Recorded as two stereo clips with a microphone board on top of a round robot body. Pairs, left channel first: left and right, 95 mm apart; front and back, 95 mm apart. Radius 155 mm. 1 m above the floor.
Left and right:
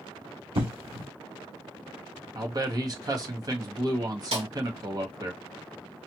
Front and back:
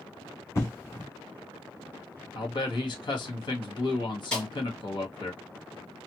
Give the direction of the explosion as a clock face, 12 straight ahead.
2 o'clock.